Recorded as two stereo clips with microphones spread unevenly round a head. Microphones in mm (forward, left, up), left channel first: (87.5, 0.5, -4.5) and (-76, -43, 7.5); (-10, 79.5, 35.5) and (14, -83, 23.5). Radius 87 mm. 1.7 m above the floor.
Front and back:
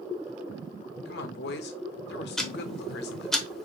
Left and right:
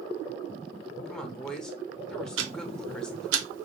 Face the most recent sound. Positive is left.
turn(degrees=-75)